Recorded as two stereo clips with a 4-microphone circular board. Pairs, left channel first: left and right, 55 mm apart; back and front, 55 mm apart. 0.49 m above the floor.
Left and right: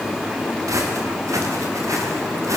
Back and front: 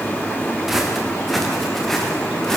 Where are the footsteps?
85° right, 7 m; by 2.6 s 95° right, 8 m.